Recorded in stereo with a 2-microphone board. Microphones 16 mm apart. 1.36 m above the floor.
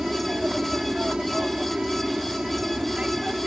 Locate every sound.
0.0 s an aircraft: 55° right (ahead or behind); by 3.5 s 70° right (ahead or behind)